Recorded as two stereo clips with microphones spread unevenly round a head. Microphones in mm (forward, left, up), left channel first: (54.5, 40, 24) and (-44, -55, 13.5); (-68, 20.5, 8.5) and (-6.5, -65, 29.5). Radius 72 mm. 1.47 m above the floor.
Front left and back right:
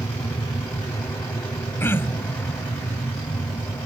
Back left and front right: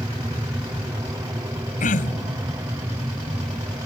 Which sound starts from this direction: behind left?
Throat clearing, at 1.8 s.